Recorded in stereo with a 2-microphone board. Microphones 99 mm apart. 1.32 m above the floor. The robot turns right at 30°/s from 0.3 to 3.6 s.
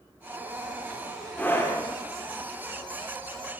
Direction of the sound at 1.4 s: 15° left (ahead or behind).